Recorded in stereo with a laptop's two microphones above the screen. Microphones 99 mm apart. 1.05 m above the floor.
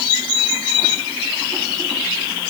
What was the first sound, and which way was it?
Only background noise.